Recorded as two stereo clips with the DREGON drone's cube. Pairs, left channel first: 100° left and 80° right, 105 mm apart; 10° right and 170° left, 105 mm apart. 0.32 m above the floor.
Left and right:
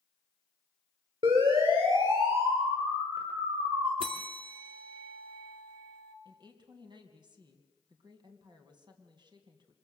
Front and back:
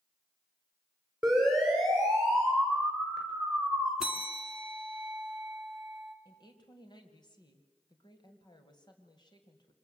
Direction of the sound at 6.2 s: 50° right.